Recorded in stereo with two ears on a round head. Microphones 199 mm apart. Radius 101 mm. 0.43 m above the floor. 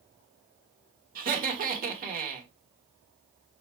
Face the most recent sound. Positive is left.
turn(degrees=-40)  # may be behind; listen again after turning